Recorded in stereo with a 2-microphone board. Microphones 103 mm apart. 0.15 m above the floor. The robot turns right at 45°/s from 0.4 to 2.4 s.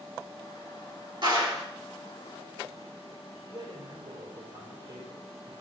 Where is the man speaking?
40° right (ahead or behind), 3.5 m.